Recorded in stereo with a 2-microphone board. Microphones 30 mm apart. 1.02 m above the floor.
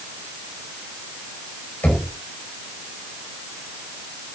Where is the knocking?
85° left, 5 m.